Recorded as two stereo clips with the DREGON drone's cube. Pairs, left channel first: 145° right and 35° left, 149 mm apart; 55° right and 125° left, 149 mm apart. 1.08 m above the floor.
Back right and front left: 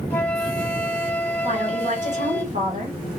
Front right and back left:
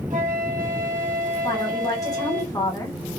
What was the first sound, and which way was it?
A flute, 135° left.